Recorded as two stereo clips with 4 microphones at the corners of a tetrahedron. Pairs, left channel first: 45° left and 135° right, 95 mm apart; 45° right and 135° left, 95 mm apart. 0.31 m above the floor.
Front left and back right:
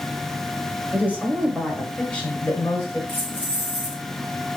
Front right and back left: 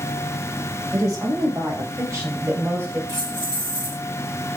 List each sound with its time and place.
0.9 s a woman speaking: 160° left, 1.2 m; by 3.0 s 80° left, 1.1 m
3.1 s keys jangling: 25° right, 2 m